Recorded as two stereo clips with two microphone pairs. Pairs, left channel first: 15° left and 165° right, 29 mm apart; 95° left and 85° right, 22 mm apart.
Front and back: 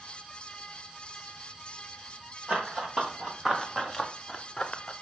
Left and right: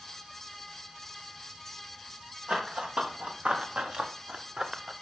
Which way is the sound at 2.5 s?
110° right.